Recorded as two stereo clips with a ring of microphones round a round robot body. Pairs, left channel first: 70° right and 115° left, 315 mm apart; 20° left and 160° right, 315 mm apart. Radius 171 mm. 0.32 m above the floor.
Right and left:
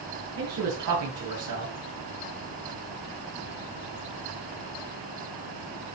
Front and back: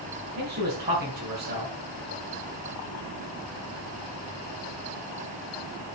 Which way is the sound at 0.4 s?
145° left.